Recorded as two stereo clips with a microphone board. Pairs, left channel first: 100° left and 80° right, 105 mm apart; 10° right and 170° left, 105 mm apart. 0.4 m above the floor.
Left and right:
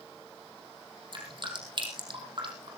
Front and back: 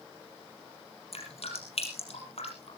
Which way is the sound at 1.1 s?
35° right.